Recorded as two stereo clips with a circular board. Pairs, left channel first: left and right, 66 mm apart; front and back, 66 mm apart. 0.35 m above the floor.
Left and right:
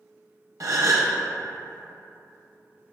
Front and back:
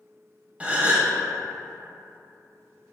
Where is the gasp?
110° right, 0.6 m.